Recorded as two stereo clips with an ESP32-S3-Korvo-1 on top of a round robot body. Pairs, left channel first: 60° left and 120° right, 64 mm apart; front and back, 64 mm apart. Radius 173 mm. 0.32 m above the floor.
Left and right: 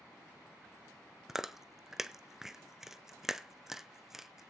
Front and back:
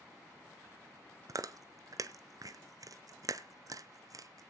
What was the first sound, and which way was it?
Chewing, 155° left.